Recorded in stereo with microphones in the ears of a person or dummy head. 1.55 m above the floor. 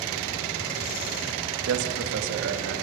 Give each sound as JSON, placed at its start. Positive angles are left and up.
{"t": 1.7, "sound": "a man speaking", "side_deg": -85, "distance_m": 2.5}